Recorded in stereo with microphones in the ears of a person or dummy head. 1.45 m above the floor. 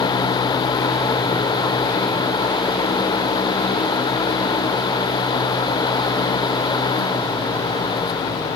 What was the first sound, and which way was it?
Only background noise.